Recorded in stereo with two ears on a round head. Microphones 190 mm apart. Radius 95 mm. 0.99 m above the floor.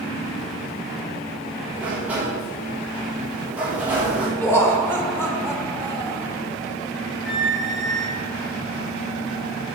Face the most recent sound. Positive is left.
turn(degrees=0)  # may be behind; listen again after turning